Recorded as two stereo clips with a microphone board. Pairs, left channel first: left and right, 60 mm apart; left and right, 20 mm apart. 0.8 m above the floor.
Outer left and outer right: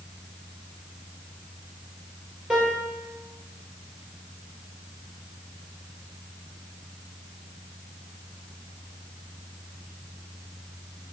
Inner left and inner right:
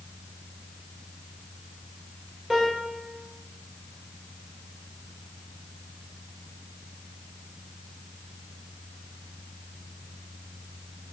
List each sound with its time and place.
2.5 s a piano: 15° right (ahead or behind), 1.2 m